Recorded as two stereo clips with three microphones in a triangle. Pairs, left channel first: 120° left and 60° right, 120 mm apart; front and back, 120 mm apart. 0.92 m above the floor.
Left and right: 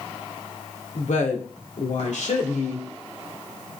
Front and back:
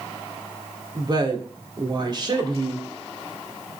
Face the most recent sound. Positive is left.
turn(degrees=130)